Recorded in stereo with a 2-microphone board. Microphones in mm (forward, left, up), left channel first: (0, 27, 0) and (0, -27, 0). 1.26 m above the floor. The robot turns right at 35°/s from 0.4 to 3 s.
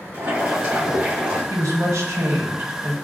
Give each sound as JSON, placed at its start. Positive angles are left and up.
{"t": 0.1, "sound": "boiling", "azimuth_deg": -60, "distance_m": 1.9}
{"t": 1.5, "sound": "a woman speaking", "azimuth_deg": -85, "distance_m": 1.1}